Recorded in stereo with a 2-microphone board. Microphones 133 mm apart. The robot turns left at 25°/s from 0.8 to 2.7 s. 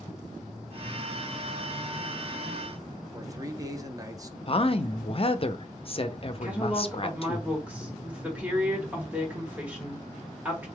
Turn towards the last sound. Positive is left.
turn(degrees=-10)  # may be behind; listen again after turning